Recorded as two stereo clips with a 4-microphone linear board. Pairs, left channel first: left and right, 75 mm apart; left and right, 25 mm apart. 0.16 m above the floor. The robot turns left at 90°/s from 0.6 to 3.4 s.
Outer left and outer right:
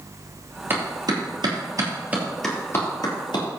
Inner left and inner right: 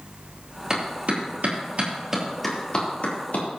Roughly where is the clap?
Right.